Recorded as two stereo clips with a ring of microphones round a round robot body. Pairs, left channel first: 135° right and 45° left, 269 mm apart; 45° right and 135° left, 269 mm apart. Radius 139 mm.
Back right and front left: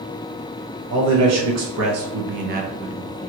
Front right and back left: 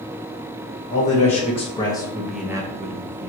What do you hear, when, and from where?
0.9 s a man speaking: 20° left, 1.4 m; by 3.3 s 155° left, 0.6 m